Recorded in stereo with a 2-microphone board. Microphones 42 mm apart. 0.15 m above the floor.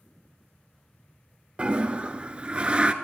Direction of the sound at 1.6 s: 30° right (ahead or behind).